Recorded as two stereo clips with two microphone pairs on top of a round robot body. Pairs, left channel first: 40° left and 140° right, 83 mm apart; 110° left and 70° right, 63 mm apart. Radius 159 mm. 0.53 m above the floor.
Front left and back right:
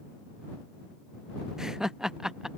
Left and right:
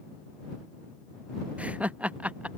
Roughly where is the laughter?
Ahead right.